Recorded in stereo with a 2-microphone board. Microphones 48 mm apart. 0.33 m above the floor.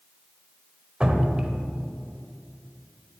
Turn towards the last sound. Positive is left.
turn(degrees=-15)  # may be behind; listen again after turning